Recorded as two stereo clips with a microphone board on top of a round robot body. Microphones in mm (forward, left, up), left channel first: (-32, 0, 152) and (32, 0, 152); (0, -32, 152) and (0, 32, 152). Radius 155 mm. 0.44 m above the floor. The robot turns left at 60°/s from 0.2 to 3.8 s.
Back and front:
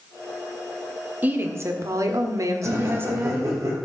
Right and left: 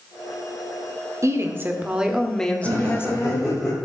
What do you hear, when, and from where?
1.2 s a woman speaking: 60° left, 1.8 m; by 3.6 s 85° right, 1.8 m
2.6 s laughter: 45° left, 4 m; by 3.8 s 20° right, 4 m